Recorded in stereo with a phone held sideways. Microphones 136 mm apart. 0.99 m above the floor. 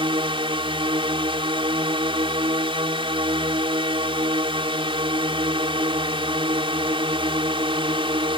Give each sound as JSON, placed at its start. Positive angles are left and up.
{"t": 0.0, "sound": "a drone", "side_deg": -40}